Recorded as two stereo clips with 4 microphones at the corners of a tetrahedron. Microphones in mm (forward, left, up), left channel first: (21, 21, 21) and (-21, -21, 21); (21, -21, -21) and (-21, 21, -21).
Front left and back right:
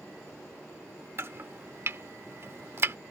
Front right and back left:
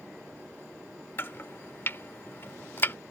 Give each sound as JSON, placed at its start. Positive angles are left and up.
{"t": 1.2, "sound": "chopping", "azimuth_deg": -90}